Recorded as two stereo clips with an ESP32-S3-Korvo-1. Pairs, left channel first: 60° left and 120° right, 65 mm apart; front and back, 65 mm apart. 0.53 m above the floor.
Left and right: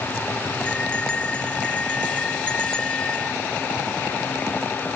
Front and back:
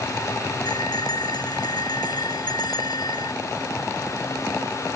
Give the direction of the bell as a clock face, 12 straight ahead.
12 o'clock.